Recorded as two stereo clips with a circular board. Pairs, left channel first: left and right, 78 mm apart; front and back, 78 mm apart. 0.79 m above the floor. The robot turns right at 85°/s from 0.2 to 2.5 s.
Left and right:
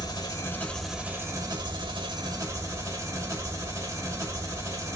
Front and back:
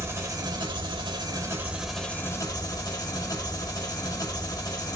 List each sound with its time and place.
0.0 s an engine running: 125° left, 1.5 m; by 5.0 s 40° right, 1.5 m